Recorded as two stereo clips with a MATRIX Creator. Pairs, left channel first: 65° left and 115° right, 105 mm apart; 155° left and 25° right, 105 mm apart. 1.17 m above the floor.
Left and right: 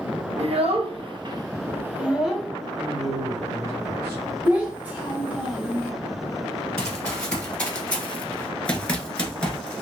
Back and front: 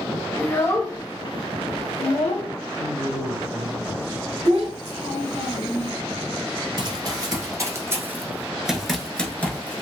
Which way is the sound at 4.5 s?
35° right.